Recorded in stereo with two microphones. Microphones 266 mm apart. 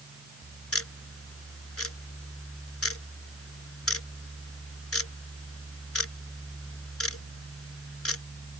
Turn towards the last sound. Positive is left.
turn(degrees=65)  # may be behind; listen again after turning